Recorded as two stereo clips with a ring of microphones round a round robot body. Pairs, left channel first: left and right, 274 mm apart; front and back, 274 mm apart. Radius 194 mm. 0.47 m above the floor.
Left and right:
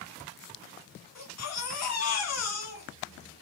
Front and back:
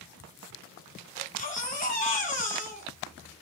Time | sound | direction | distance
1.1 | a baby crying | 65° left | 2.5 m